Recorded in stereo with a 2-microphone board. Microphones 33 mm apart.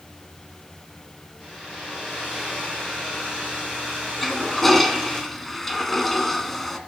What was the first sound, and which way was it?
A hair dryer, 5° left (ahead or behind).